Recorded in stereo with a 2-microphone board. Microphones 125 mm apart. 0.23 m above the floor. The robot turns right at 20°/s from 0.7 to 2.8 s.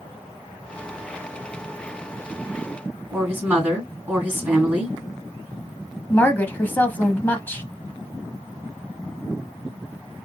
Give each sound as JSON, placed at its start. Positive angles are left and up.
{"t": 3.1, "sound": "a woman speaking", "side_deg": -15, "distance_m": 2.0}
{"t": 6.1, "sound": "a woman speaking", "side_deg": 15, "distance_m": 1.4}